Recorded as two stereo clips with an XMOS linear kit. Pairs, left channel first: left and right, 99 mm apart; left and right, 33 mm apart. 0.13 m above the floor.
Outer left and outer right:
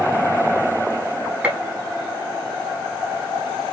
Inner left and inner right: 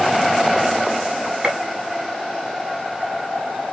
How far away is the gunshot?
About 1.3 m.